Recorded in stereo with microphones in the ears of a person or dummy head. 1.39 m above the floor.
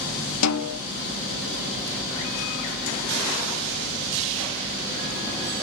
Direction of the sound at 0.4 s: 80° left.